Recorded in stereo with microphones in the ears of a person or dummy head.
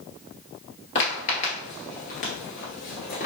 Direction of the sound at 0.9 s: 30° left (ahead or behind).